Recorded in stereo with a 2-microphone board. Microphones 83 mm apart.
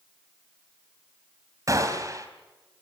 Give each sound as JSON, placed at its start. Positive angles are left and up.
{"t": 1.7, "sound": "a gunshot", "side_deg": -40, "distance_m": 3.5}